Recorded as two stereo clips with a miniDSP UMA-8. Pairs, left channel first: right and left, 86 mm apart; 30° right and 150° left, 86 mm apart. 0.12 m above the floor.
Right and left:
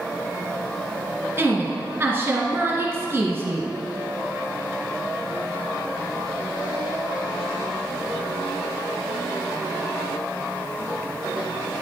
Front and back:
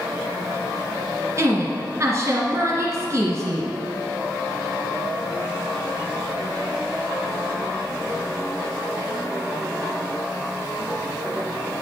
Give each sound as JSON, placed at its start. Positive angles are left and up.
{"t": 1.4, "sound": "a woman speaking", "azimuth_deg": 130, "distance_m": 1.5}